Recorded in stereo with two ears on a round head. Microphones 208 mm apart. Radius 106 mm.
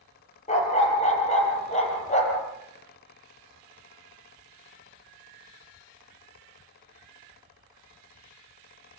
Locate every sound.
0.5 s a dog barking: 30° left (ahead or behind), 5.5 m